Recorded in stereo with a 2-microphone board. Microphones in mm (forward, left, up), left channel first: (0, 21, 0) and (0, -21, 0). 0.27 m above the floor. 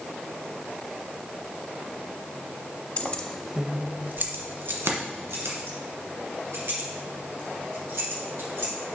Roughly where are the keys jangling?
Left.